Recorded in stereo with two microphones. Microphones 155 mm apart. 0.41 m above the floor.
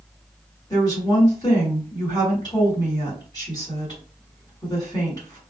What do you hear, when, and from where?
0.7 s a woman speaking: 25° left (ahead or behind), 1.7 m